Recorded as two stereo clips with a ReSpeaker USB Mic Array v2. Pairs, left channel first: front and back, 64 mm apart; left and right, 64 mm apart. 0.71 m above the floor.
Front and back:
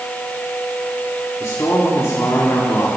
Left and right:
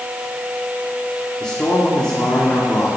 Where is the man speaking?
20° left, 1.9 m.